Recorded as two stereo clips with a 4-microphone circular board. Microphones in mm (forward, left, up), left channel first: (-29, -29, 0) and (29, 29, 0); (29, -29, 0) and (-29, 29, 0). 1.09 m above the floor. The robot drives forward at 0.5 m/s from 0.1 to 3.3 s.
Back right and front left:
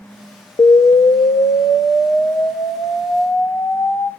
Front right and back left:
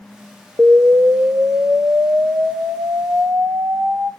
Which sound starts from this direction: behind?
An explosion, at 0.6 s.